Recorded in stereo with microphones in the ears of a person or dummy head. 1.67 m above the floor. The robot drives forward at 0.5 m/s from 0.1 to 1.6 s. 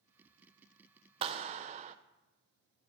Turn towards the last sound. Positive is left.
turn(degrees=-35)  # may be behind; listen again after turning